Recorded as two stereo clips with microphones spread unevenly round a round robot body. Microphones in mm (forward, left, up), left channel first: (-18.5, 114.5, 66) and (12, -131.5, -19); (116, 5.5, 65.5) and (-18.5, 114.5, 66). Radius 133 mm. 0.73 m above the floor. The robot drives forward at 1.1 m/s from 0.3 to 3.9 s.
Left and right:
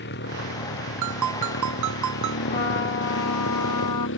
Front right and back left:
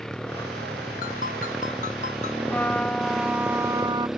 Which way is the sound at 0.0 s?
50° left.